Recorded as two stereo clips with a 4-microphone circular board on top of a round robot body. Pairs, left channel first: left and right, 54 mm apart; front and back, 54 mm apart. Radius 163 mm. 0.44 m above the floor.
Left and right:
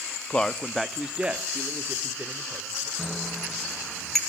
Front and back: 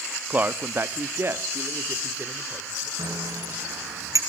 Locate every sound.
0.3 s a man speaking: 140° left, 1.2 m; by 2.9 s 135° right, 3 m
3.0 s a bicycle bell: 175° left, 4.5 m